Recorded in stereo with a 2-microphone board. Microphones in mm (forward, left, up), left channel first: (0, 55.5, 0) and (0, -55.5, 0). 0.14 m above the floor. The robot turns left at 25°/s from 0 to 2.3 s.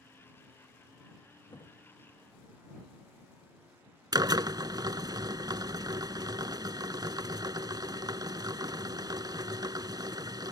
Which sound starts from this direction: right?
A drill, at 4.1 s.